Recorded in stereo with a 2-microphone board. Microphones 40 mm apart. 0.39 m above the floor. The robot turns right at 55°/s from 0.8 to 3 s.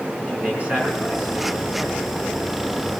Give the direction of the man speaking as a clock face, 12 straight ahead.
5 o'clock.